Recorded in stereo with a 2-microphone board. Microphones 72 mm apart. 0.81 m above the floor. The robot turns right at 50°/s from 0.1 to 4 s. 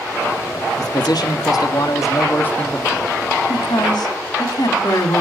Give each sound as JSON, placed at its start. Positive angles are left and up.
{"t": 0.8, "sound": "a man speaking", "azimuth_deg": 65, "distance_m": 1.1}
{"t": 3.5, "sound": "a woman speaking", "side_deg": 75, "distance_m": 1.5}